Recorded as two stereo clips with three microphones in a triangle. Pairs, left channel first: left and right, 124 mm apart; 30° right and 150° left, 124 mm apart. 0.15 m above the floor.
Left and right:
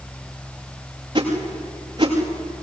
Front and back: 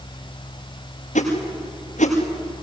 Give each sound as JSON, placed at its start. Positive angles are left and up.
{"t": 1.1, "sound": "a whoosh", "azimuth_deg": -40, "distance_m": 7.5}